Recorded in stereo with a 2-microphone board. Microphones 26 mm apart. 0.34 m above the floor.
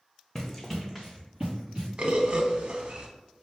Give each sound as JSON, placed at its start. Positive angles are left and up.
{"t": 0.3, "sound": "running footsteps", "side_deg": 15, "distance_m": 1.1}
{"t": 2.0, "sound": "a bird", "side_deg": -50, "distance_m": 0.7}